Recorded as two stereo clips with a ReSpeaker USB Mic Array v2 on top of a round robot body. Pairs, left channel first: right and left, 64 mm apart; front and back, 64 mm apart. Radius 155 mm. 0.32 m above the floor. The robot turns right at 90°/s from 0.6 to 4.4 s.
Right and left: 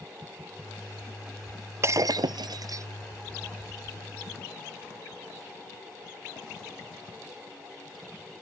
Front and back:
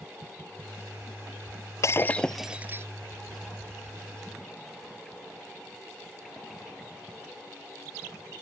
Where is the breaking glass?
40° left; by 2.9 s 135° left.